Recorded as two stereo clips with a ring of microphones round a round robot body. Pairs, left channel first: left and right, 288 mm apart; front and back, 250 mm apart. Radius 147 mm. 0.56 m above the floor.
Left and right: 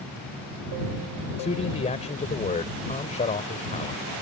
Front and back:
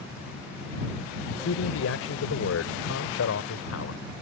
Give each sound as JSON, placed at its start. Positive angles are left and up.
{"t": 1.4, "sound": "a man speaking", "azimuth_deg": 25}